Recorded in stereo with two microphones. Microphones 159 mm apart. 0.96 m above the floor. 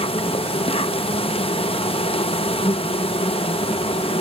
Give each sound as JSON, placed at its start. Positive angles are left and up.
{"t": 0.0, "sound": "an insect", "side_deg": 40}